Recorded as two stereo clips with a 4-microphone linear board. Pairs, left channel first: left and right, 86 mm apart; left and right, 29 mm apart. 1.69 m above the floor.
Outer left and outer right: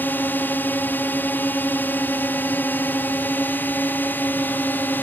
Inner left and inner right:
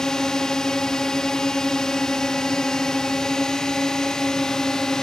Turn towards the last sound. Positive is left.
turn(degrees=20)  # may be behind; listen again after turning